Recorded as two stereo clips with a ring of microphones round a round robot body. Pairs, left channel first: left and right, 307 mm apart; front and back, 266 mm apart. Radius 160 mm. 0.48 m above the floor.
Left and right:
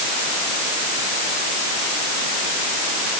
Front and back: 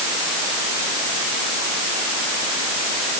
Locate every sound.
Only background noise.